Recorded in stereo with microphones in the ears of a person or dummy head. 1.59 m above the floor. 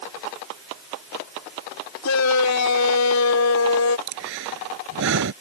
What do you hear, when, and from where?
2.0 s a shout: 80° left
4.1 s breathing: 65° right (ahead or behind)